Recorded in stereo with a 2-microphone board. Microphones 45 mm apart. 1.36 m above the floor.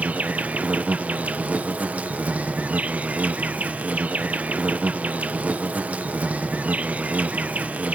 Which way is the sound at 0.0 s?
35° right (ahead or behind).